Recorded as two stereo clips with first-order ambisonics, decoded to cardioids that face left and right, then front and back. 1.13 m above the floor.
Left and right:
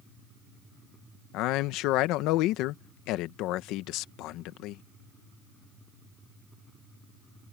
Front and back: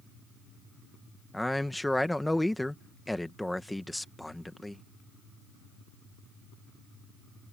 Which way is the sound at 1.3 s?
85° left.